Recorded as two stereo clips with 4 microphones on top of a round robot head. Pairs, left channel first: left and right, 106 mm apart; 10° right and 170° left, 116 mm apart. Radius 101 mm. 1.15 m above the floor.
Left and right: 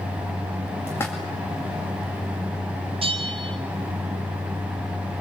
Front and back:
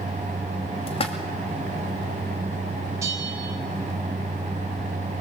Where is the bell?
120° right, 1.6 m.